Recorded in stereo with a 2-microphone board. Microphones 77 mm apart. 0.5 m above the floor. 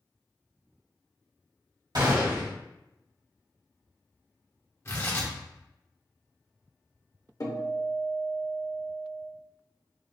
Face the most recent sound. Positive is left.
turn(degrees=50)  # may be behind; listen again after turning